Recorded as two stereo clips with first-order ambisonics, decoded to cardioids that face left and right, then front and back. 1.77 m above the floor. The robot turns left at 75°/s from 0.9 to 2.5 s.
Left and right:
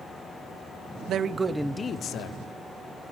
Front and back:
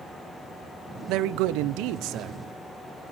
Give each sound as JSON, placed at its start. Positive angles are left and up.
{"t": 1.1, "sound": "a man speaking", "azimuth_deg": -140, "distance_m": 1.0}